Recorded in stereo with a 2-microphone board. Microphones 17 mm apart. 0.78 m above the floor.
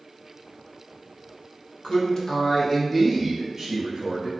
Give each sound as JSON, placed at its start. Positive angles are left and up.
{"t": 1.8, "sound": "a man speaking", "side_deg": 60, "distance_m": 0.7}